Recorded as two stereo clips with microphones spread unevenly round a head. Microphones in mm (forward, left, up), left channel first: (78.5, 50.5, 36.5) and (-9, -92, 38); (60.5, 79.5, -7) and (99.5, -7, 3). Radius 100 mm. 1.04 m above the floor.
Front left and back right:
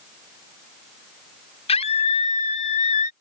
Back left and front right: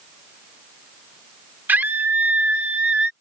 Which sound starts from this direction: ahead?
A scream, at 1.7 s.